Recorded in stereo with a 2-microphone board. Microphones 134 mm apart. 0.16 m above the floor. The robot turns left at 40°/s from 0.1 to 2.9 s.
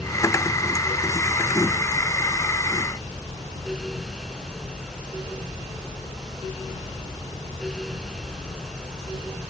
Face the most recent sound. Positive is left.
No sound to turn to.